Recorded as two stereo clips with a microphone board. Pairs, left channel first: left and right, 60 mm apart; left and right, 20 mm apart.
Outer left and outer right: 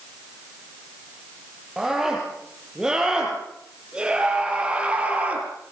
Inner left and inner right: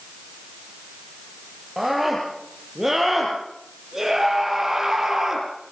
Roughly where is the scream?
Centre.